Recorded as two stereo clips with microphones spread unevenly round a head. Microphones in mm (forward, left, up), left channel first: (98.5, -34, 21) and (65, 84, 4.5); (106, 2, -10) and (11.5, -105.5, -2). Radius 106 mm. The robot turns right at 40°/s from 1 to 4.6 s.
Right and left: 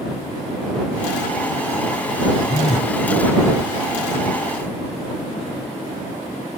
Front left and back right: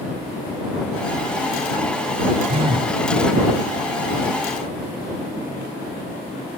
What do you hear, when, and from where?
2.5 s a phone buzzing: 90° right; by 3.0 s 75° right